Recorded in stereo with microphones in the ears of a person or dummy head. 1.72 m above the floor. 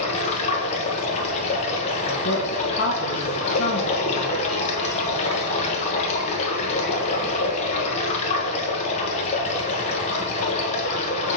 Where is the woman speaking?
65° left (ahead or behind), 1.3 m.